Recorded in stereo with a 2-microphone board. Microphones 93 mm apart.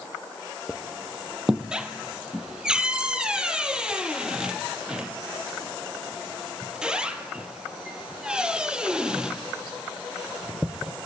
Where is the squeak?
10° right (ahead or behind), 0.9 m.